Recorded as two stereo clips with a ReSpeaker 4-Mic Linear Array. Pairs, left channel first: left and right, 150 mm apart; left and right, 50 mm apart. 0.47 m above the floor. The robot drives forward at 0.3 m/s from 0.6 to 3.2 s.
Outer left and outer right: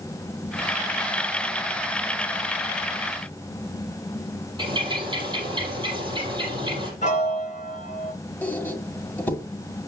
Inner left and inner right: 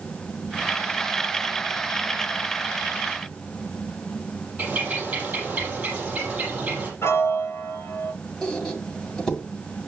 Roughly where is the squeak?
Centre.